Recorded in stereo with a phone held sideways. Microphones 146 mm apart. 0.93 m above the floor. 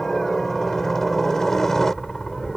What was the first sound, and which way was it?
A helicopter, centre (ahead or behind).